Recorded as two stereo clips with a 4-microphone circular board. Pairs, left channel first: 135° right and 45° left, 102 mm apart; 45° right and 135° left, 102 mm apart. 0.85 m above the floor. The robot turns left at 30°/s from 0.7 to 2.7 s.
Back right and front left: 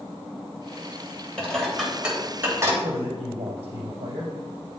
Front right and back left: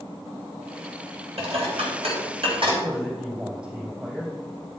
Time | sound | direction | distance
1.4 | dishes clattering | 145° left | 3 m
2.8 | a man speaking | 60° left | 4 m